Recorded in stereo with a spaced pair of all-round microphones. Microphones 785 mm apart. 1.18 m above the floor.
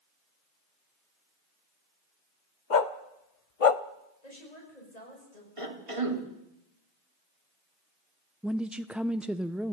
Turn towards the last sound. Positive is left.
turn(degrees=0)  # may be behind; listen again after turning